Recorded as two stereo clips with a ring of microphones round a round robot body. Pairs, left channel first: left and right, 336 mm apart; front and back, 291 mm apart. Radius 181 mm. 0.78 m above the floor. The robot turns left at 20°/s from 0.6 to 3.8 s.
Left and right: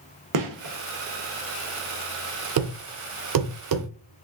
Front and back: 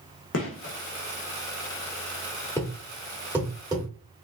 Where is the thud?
80° right, 0.5 m; by 4.2 s 105° right, 0.5 m.